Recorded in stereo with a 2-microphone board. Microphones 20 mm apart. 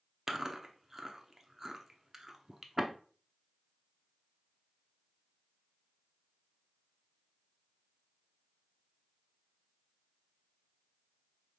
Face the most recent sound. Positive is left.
turn(degrees=-20)  # may be behind; listen again after turning